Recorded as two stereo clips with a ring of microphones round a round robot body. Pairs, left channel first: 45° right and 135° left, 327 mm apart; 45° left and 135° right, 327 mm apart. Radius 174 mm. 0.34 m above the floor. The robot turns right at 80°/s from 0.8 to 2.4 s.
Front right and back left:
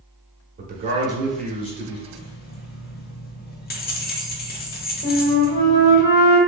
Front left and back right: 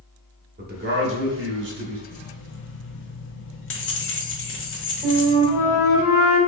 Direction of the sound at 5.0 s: 60° right.